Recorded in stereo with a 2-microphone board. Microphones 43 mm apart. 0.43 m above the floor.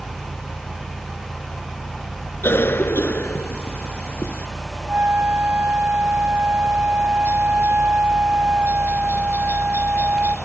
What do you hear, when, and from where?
0.0 s a helicopter: 55° left (ahead or behind)
2.4 s a cough: 65° left (ahead or behind)
4.9 s a flute: 45° right (ahead or behind)